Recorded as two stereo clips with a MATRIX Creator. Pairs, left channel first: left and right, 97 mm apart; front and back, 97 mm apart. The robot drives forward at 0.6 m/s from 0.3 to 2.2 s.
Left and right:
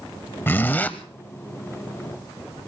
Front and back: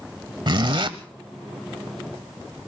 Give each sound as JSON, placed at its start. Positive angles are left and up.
{"t": 0.5, "sound": "a zipper", "azimuth_deg": 155, "distance_m": 1.0}